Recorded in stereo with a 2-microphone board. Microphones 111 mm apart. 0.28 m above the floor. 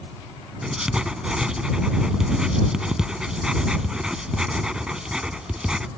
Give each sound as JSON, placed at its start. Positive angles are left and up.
{"t": 0.6, "sound": "writing", "side_deg": -5}